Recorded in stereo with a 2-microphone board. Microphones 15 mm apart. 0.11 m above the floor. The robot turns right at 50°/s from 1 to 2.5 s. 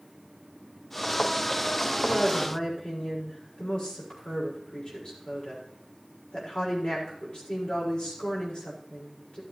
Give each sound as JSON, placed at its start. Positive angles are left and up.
{"t": 2.0, "sound": "a woman speaking", "side_deg": 40, "distance_m": 6.5}